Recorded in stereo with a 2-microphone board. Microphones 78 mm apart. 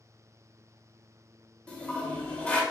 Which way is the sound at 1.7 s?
15° left (ahead or behind).